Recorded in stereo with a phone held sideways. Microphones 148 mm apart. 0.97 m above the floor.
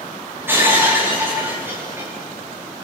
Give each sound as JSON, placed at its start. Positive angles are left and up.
{"t": 0.5, "sound": "breaking glass", "side_deg": -15, "distance_m": 6.5}